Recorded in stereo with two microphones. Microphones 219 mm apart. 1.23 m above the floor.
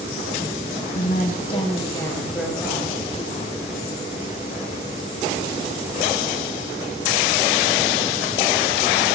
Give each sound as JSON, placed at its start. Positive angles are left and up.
{"t": 0.9, "sound": "a woman speaking", "side_deg": 45, "distance_m": 1.1}